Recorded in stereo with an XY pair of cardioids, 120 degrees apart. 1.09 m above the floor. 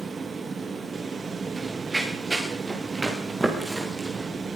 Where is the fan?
30° right, 0.7 m.